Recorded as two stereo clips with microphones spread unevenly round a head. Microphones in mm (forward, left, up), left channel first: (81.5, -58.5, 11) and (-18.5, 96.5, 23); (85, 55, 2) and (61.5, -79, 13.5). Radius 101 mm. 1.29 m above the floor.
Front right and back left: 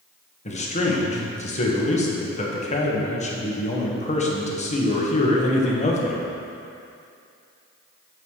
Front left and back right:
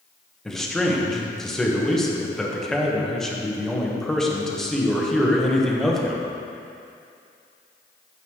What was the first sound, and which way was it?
A man speaking, 5° right.